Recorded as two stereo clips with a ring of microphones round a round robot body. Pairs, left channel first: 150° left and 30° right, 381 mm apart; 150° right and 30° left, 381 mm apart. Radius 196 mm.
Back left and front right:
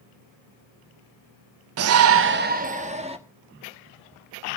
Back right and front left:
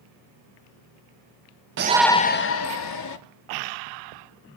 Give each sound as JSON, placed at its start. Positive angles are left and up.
{"t": 1.8, "sound": "a shout", "azimuth_deg": -5, "distance_m": 0.6}